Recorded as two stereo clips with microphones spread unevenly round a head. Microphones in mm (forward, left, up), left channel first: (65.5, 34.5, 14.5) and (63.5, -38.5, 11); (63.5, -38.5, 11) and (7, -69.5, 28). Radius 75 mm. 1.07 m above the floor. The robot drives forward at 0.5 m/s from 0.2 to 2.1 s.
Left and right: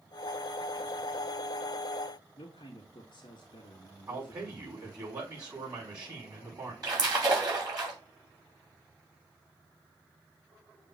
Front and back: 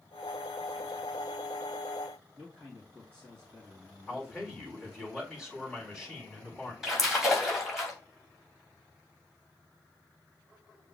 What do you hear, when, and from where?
2.4 s a man speaking: 135° left, 1.6 m
4.1 s a man speaking: 65° right, 4.5 m
6.8 s a splash: 65° right, 3 m